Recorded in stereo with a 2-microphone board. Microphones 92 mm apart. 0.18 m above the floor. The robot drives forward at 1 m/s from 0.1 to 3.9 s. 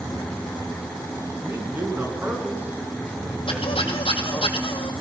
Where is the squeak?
75° left (ahead or behind), 1.8 m; by 4.9 s 85° left, 1.8 m.